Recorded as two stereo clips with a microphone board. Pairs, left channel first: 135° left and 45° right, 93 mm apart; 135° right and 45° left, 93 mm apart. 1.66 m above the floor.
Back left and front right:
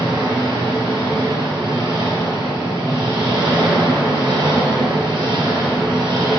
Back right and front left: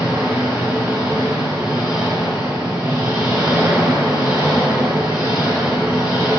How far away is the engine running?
About 1.2 m.